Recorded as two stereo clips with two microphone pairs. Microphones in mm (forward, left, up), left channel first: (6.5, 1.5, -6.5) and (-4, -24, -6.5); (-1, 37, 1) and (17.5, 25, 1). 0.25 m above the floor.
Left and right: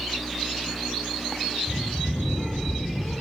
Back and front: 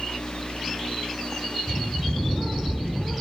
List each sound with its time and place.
1.7 s a bird: 20° left, 6 m